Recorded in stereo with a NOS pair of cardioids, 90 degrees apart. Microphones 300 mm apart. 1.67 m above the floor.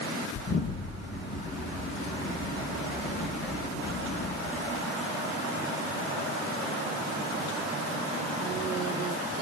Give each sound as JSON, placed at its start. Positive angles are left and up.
{"t": 0.3, "sound": "an explosion", "azimuth_deg": 50, "distance_m": 9.5}